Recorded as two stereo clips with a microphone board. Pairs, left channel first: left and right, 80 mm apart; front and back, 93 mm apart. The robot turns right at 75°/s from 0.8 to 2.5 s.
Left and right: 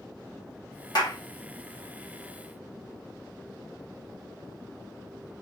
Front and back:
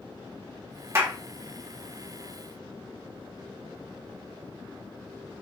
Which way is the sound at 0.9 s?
120° left.